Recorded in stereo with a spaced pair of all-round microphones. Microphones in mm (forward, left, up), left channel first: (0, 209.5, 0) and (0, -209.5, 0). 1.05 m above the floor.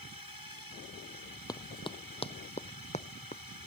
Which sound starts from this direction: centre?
Running footsteps, at 1.5 s.